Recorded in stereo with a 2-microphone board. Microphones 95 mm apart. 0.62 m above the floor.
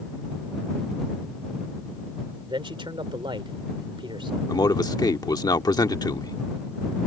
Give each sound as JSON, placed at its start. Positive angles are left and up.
{"t": 2.5, "sound": "a man speaking", "side_deg": -65}
{"t": 4.5, "sound": "a man speaking", "side_deg": 45}